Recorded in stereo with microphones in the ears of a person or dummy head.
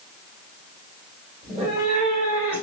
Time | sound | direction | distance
1.4 | a cat meowing | 30° right (ahead or behind) | 1.5 m